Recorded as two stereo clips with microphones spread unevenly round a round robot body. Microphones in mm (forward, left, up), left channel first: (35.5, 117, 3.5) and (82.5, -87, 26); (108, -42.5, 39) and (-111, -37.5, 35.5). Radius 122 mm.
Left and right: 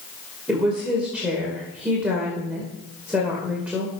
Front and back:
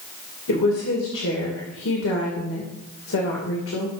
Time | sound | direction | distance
0.5 | a woman speaking | 10° left | 2.5 m